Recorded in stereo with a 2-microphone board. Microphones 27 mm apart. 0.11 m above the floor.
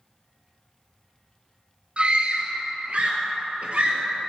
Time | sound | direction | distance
2.0 | a scream | 45° right (ahead or behind) | 1.8 m